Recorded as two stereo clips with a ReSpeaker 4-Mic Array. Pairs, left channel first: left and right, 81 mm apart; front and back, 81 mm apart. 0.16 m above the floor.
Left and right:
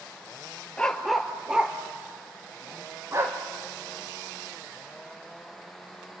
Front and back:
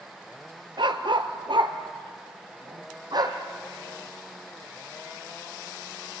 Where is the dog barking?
170° left, 1.3 m; by 3.4 s 145° right, 2.5 m.